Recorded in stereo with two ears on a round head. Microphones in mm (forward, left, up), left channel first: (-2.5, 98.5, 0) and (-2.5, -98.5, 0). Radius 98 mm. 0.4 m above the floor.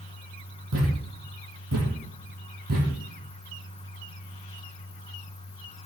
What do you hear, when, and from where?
0.7 s a thud: 80° right, 6 m